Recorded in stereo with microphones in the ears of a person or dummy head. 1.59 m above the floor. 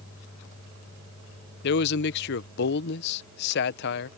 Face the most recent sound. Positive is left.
turn(degrees=60)  # may be behind; listen again after turning